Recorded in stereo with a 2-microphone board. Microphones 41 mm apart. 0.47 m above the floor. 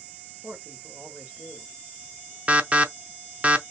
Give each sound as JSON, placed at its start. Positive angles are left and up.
{"t": 0.4, "sound": "a man speaking", "side_deg": -55, "distance_m": 1.8}
{"t": 2.5, "sound": "an alarm", "side_deg": -30, "distance_m": 0.6}